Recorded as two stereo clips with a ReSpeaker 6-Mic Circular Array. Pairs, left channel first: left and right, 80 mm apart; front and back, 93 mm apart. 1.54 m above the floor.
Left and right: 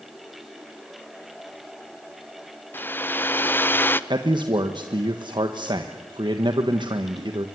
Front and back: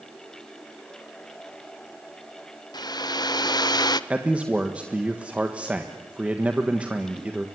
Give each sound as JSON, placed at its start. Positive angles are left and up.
{"t": 2.7, "sound": "a hair dryer", "azimuth_deg": 30, "distance_m": 0.7}
{"t": 4.1, "sound": "a man speaking", "azimuth_deg": -105, "distance_m": 1.4}